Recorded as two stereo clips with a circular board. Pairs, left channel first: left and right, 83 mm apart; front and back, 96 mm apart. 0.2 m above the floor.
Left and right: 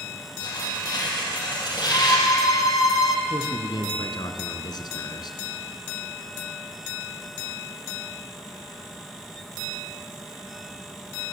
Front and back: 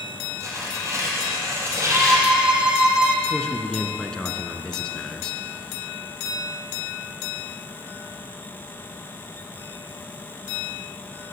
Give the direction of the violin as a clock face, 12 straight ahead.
9 o'clock.